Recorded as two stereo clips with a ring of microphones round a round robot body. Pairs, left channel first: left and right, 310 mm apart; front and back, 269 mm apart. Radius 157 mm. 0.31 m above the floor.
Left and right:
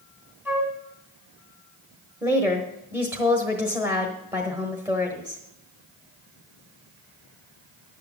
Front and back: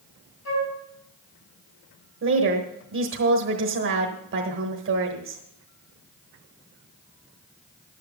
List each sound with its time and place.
0.5 s a flute: 5° right, 3 m
2.2 s a woman speaking: 170° right, 1.3 m